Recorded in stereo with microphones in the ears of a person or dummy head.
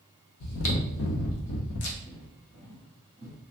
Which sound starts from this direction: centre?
Footsteps, at 2.0 s.